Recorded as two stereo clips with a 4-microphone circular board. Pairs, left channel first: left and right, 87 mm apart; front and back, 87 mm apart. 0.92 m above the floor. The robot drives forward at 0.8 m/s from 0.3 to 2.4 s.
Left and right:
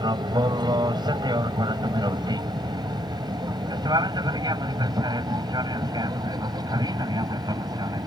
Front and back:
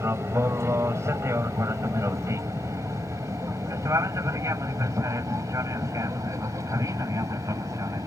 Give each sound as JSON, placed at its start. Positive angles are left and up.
{"t": 0.0, "sound": "an aircraft", "azimuth_deg": -120}